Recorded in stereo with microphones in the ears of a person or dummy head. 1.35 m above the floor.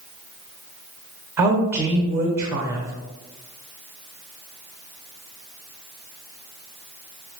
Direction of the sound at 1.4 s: 15° right (ahead or behind).